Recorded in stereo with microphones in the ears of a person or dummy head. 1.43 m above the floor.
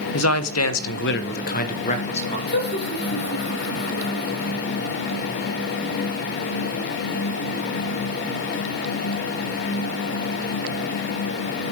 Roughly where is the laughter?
Left.